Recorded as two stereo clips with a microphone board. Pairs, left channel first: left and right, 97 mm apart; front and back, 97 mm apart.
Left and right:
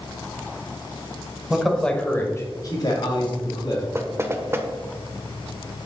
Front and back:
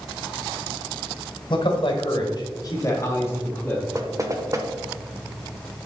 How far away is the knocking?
About 0.9 m.